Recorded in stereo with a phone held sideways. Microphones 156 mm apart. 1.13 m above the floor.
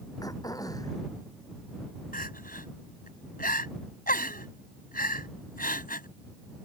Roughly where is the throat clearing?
Left.